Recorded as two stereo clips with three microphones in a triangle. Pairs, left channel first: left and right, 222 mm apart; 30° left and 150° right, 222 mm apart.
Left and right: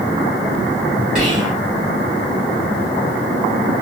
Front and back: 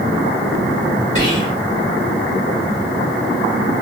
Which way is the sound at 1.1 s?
35° right.